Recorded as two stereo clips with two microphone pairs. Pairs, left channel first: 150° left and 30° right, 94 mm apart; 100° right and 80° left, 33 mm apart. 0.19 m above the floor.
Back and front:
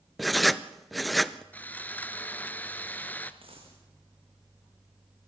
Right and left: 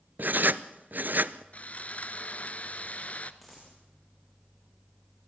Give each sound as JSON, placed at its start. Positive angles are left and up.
{"t": 0.2, "sound": "writing", "azimuth_deg": 60, "distance_m": 0.6}
{"t": 1.5, "sound": "sawing", "azimuth_deg": -135, "distance_m": 0.9}
{"t": 3.4, "sound": "a dropped coin", "azimuth_deg": -10, "distance_m": 5.0}